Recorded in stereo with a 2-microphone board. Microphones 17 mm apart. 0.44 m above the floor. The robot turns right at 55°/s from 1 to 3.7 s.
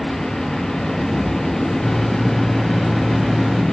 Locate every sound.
1.8 s a microwave: 145° left, 1.9 m; by 3.6 s 115° right, 1.9 m